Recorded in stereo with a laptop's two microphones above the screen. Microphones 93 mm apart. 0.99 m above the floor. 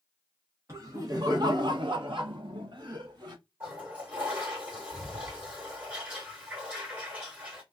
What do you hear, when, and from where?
0.7 s laughter: 35° right (ahead or behind), 1.0 m; by 3.4 s 50° right (ahead or behind), 1.1 m
3.6 s a toilet flushing: 15° right (ahead or behind), 1.4 m